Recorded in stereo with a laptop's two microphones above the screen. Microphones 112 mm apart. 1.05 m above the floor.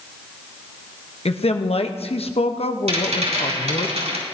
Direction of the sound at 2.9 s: 80° right.